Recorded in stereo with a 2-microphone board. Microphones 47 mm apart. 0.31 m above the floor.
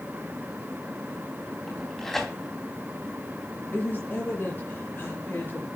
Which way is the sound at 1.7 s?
10° left (ahead or behind).